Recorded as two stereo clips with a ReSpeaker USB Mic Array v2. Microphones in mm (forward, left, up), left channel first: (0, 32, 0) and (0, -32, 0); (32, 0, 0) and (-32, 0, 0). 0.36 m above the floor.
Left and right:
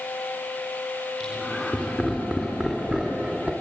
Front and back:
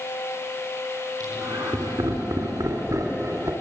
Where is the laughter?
170° left, 4.5 m; by 3.5 s 175° right, 3 m.